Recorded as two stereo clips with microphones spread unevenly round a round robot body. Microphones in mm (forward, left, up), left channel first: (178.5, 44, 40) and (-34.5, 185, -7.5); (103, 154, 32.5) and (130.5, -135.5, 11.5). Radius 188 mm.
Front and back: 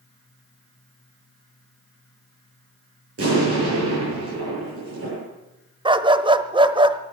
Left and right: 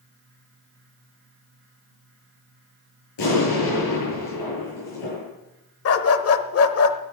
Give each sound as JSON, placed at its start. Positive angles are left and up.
{"t": 3.2, "sound": "an explosion", "azimuth_deg": 115, "distance_m": 8.5}
{"t": 5.8, "sound": "a dog barking", "azimuth_deg": 70, "distance_m": 1.2}